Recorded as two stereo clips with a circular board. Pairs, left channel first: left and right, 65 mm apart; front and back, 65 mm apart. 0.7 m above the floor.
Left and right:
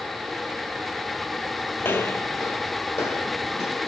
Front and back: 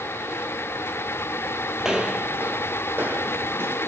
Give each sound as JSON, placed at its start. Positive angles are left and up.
{"t": 1.8, "sound": "footsteps", "azimuth_deg": 105, "distance_m": 0.8}